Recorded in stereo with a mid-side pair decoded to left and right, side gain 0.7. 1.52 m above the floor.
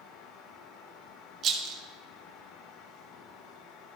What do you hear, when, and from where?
0.0 s a fan: 55° left, 1.3 m
1.4 s a rattle: 45° right, 1.2 m